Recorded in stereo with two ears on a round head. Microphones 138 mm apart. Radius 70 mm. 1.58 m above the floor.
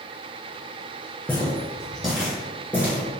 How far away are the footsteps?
About 1.6 m.